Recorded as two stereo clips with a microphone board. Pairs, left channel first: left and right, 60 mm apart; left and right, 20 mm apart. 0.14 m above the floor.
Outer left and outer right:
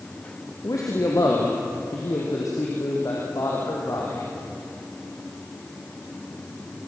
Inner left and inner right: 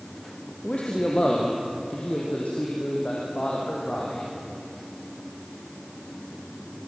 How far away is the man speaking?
About 3.5 m.